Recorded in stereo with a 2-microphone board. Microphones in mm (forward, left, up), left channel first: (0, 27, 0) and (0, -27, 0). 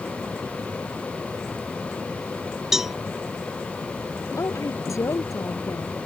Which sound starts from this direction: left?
A woman speaking, at 4.4 s.